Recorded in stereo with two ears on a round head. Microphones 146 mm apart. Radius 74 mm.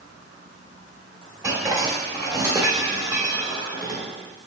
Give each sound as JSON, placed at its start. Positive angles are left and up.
{"t": 1.4, "sound": "dishes clattering", "side_deg": -15, "distance_m": 1.1}